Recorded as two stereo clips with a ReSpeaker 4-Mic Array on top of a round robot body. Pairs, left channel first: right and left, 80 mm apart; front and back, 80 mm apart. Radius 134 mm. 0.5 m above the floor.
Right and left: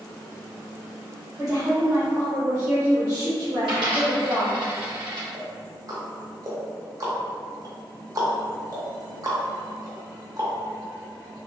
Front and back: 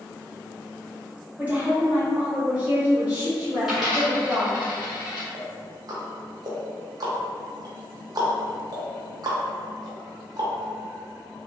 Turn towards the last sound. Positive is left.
turn(degrees=135)